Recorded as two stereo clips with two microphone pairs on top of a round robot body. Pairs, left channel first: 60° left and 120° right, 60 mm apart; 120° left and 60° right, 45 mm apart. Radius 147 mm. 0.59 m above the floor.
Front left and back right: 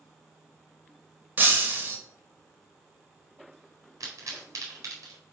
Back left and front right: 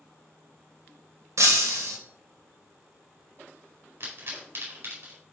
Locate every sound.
1.4 s breaking glass: 65° right, 2 m
4.0 s a pop: 95° right, 4 m